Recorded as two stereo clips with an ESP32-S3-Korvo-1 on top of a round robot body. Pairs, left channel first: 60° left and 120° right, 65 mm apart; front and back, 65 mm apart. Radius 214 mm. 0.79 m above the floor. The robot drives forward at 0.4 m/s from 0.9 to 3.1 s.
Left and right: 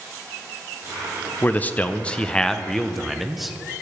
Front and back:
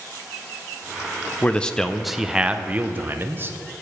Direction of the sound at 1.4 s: 45° left.